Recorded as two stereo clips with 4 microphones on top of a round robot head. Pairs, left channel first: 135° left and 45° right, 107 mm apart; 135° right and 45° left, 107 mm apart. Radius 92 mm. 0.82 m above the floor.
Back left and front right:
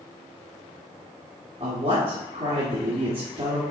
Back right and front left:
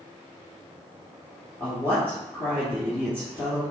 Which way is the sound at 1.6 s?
65° right.